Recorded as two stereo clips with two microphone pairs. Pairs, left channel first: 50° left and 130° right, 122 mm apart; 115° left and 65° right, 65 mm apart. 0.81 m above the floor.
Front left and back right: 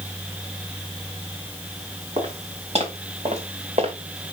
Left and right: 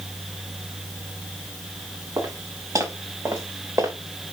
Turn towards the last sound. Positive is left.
turn(degrees=-105)